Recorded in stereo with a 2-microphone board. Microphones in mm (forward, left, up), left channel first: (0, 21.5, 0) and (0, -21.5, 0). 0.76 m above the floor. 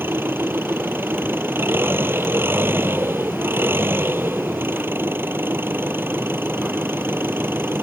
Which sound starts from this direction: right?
An engine running, at 0.0 s.